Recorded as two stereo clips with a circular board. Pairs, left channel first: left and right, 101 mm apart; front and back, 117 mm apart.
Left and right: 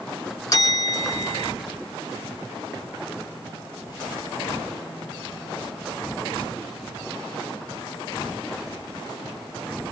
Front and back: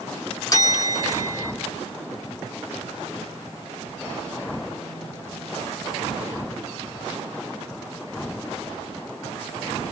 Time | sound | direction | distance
0.5 | a bell | 50° left | 1.7 m